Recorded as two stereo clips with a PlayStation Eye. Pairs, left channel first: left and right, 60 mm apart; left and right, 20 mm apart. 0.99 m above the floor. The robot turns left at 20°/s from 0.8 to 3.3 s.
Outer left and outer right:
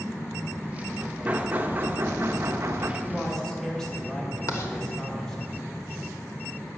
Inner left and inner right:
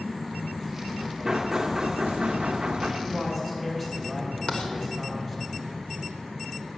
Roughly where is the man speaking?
Centre.